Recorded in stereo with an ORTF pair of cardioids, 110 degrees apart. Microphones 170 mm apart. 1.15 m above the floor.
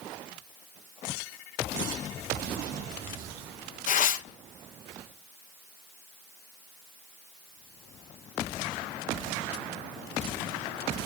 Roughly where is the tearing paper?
Ahead left.